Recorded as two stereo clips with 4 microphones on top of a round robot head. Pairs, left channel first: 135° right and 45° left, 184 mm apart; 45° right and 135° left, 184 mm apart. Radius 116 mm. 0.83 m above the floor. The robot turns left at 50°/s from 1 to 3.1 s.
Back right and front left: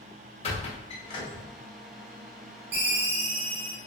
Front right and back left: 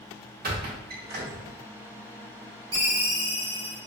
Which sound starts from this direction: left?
A ringtone, at 2.7 s.